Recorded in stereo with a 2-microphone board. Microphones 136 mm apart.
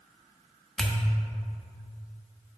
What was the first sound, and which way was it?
A pop, 5° left (ahead or behind).